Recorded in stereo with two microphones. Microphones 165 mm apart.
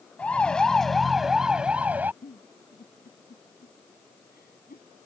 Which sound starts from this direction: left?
A giggle, at 2.2 s.